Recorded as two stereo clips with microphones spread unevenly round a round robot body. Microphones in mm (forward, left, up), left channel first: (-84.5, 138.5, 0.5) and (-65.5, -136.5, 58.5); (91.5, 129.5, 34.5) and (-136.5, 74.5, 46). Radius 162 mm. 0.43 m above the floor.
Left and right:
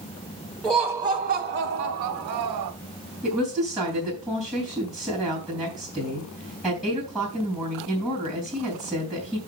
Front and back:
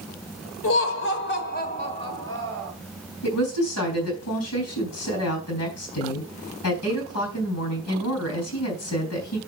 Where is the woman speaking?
5° left, 4 m.